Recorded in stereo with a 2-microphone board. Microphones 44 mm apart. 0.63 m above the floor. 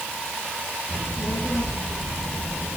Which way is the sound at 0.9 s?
70° left (ahead or behind).